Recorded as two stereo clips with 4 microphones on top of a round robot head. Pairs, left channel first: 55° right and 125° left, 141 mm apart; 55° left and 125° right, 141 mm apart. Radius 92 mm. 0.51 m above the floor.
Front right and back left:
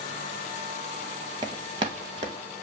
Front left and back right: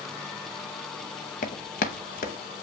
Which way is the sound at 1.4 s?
70° left.